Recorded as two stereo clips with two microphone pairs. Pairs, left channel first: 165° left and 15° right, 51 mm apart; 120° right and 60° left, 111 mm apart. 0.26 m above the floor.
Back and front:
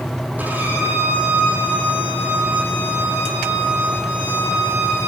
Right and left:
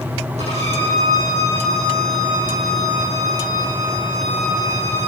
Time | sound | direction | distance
0.4 | a violin | 45° left | 8.5 m